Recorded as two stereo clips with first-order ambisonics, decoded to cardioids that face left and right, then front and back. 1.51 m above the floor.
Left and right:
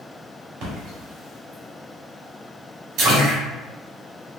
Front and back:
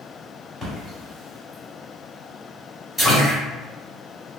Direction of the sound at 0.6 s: 90° right.